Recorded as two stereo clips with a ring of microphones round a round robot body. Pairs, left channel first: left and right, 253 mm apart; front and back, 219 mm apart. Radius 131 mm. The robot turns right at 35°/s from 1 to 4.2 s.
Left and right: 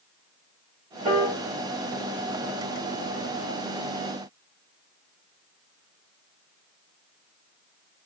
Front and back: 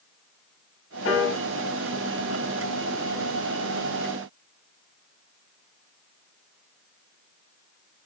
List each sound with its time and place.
1.1 s a piano: 30° right, 1.1 m; by 1.4 s 15° right, 1.1 m